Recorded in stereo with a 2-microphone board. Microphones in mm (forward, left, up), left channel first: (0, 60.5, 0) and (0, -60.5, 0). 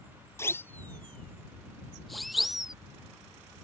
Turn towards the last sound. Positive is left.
turn(degrees=-5)  # may be behind; listen again after turning